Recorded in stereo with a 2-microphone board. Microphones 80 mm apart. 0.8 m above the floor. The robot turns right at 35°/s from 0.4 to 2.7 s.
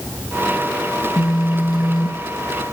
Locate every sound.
1.0 s a phone buzzing: 45° left (ahead or behind), 0.7 m; by 2.7 s 40° left (ahead or behind), 0.7 m